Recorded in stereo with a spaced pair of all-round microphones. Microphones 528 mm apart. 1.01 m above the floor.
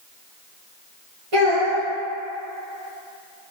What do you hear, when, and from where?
1.3 s a child speaking: 80° right, 1.3 m